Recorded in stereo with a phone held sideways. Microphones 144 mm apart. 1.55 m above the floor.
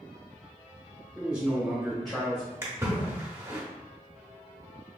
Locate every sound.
1.1 s a man speaking: 15° right (ahead or behind), 1.6 m; by 2.5 s 10° left (ahead or behind), 1.5 m
2.6 s a splash: 20° right (ahead or behind), 0.9 m